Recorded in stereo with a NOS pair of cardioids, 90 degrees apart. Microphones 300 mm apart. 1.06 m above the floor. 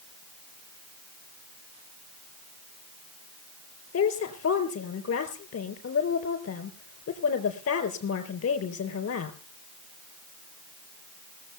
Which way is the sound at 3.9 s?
55° left.